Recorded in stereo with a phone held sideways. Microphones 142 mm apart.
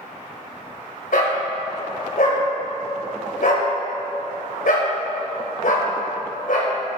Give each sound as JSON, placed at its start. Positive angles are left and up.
{"t": 1.1, "sound": "a dog barking", "side_deg": 70, "distance_m": 3.0}